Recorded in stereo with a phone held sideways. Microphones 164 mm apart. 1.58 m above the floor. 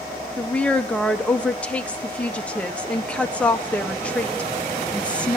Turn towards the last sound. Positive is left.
turn(degrees=5)  # may be behind; listen again after turning